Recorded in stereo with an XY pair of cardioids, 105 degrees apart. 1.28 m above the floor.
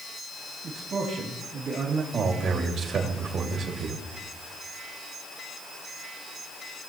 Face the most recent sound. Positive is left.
turn(degrees=-65)